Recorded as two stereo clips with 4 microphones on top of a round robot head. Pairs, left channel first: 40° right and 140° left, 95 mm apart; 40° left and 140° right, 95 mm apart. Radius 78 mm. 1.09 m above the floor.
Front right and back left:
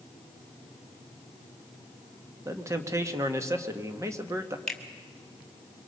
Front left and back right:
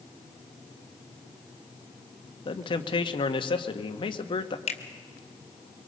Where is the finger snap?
45° left, 2 m.